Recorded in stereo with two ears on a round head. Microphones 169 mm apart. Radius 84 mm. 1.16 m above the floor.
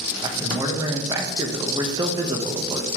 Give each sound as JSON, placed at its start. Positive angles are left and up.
{"t": 0.2, "sound": "a man speaking", "side_deg": -20, "distance_m": 1.1}